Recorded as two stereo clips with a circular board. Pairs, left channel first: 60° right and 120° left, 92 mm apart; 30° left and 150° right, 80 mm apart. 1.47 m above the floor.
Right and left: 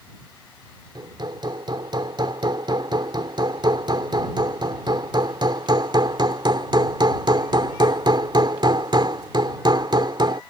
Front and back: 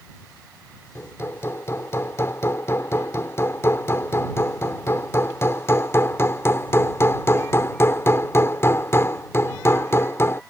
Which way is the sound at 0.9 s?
85° left.